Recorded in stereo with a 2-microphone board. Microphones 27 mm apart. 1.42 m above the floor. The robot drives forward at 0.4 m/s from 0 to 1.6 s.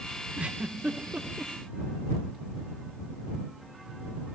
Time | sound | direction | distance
0.4 | a giggle | 50° right (ahead or behind) | 2.5 m